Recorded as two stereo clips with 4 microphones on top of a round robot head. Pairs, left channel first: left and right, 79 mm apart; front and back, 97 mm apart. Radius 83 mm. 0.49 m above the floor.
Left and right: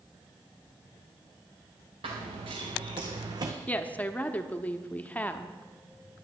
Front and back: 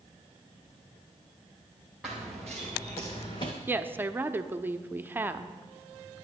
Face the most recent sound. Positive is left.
turn(degrees=140)